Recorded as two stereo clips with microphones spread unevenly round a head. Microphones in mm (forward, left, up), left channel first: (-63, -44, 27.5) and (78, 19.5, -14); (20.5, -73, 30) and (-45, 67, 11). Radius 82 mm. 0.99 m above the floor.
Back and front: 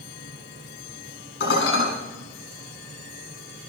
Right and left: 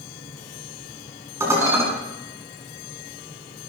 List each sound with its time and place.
1.4 s dishes clattering: 170° right, 7 m